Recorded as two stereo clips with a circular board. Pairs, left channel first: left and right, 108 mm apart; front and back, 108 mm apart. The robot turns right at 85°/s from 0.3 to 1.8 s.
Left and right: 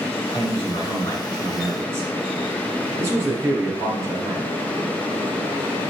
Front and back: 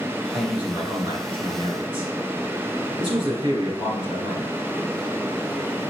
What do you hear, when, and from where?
0.3 s a man speaking: 85° left, 2.5 m; by 4.5 s 150° right, 2.5 m